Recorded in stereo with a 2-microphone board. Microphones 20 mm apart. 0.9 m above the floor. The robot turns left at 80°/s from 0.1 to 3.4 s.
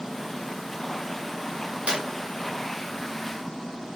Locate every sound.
1.9 s a clap: 70° right (ahead or behind), 1.5 m